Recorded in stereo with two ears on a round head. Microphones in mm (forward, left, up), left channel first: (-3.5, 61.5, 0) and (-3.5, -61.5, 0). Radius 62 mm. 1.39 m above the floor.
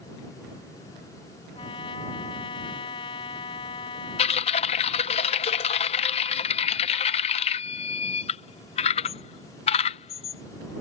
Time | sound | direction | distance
1.6 | a trumpet | 35° left (ahead or behind) | ?
4.2 | typing on a keyboard | 45° left (ahead or behind) | ?